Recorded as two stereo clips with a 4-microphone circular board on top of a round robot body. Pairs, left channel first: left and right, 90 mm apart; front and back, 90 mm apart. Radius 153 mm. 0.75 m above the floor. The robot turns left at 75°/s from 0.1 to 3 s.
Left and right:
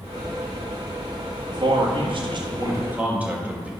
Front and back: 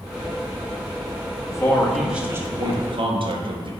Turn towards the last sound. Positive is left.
turn(degrees=-165)